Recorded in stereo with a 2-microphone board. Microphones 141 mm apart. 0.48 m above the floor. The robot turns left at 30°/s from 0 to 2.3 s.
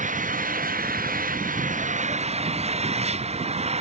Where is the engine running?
60° right; by 3.8 s 130° right.